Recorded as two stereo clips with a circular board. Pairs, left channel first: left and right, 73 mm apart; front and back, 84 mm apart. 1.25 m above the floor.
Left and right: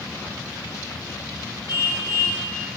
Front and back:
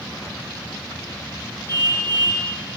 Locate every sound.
1.7 s a car horn: 145° right, 8.5 m